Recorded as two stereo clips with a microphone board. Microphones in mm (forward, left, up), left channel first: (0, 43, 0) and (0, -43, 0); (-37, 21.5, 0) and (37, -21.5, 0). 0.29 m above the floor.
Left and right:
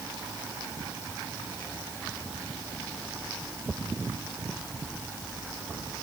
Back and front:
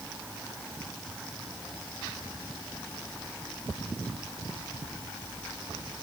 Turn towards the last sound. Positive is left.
No sound to turn to.